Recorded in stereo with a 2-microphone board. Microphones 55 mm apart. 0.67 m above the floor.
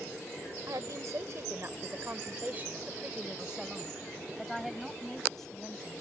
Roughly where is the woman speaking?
Right.